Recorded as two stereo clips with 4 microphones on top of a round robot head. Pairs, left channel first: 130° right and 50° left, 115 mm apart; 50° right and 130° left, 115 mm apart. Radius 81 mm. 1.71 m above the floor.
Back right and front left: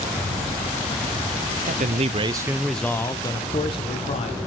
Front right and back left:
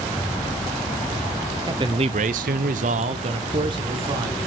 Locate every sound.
1.7 s a man speaking: 70° left, 0.8 m; by 4.4 s 170° right, 1.6 m